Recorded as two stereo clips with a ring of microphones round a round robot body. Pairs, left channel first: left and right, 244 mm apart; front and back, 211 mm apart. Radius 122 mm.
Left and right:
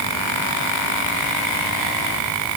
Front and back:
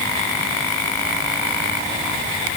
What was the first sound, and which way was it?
Only background noise.